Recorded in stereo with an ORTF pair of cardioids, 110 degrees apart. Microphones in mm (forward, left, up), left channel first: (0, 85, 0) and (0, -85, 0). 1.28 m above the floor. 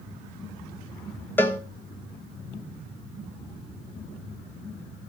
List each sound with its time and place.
1.4 s a cowbell: 10° left, 1.3 m